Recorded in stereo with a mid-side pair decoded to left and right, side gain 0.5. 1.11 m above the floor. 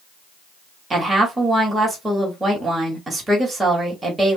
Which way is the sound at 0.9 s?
20° right.